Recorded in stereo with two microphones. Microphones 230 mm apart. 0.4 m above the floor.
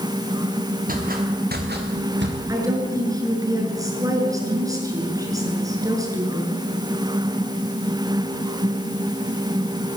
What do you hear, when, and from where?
0.9 s footsteps: 40° right (ahead or behind), 6 m; by 2.4 s 55° right (ahead or behind), 5 m
2.5 s a woman speaking: 15° right (ahead or behind), 7 m